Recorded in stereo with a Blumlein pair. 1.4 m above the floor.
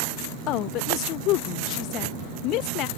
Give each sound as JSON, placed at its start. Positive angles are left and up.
{"t": 0.5, "sound": "a woman speaking", "azimuth_deg": 40}